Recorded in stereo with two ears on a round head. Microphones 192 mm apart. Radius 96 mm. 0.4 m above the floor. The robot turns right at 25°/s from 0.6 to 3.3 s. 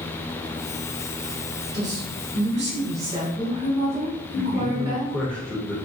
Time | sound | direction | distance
1.7 | a woman speaking | 90° right | 1.5 m
4.3 | a man speaking | 5° left (ahead or behind) | 0.8 m